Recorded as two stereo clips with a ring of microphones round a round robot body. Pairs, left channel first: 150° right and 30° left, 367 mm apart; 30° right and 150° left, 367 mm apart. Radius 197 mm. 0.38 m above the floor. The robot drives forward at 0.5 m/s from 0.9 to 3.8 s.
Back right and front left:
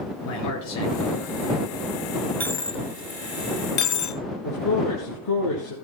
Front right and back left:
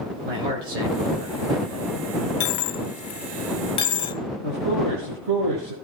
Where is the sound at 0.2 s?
160° left, 6 m; by 2.0 s 165° left, 6.5 m.